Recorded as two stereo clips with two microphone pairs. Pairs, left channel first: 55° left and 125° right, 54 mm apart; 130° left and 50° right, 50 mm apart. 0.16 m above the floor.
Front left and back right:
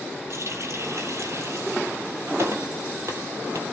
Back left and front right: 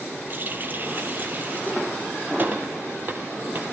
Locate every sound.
0.3 s a running tap: 100° right, 3 m